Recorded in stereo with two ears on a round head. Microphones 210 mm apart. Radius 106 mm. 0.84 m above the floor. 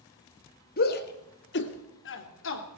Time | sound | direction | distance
0.8 | a shout | 45° left (ahead or behind) | 1.8 m